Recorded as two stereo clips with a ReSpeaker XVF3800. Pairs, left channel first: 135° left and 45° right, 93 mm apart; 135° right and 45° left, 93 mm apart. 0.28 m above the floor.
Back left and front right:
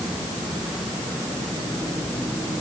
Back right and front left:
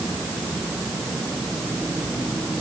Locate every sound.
Only background noise.